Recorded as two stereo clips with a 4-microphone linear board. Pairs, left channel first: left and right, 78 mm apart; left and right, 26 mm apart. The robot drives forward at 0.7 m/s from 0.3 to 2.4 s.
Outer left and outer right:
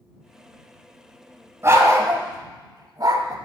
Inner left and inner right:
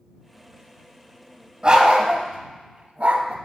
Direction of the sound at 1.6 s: 35° right (ahead or behind).